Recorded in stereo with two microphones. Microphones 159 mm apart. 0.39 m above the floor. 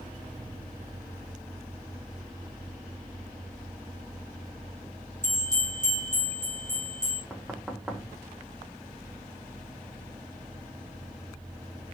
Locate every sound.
5.2 s a bell: 25° right (ahead or behind), 4.5 m
7.3 s knocking: 5° right (ahead or behind), 1.3 m